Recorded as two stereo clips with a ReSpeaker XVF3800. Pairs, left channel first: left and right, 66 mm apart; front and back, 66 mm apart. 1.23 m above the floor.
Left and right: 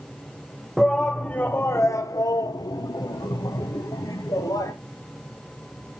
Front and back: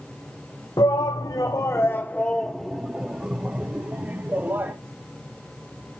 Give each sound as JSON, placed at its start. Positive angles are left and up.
{"t": 0.8, "sound": "a shout", "azimuth_deg": 0, "distance_m": 0.8}